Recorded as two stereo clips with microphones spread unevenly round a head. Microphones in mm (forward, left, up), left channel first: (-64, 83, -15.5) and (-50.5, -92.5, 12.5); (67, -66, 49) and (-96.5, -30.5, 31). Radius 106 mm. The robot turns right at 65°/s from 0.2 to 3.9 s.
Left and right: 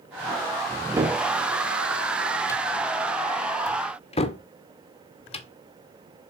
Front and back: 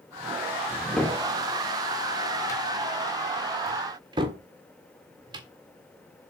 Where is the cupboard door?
80° right, 1.5 m; by 5.5 s 115° left, 1.5 m.